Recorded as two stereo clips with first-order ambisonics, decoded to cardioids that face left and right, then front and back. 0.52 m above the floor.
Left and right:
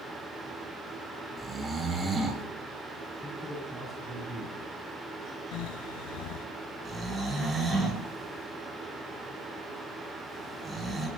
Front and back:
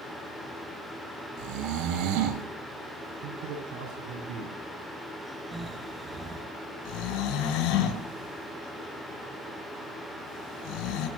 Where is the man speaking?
Straight behind, 6.5 m.